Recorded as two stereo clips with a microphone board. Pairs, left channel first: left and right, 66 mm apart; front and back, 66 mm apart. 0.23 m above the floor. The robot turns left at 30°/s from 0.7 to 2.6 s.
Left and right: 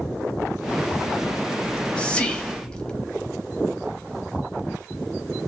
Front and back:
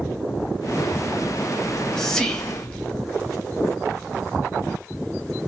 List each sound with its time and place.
1.6 s whispering: 80° left, 0.9 m; by 3.1 s 50° left, 0.9 m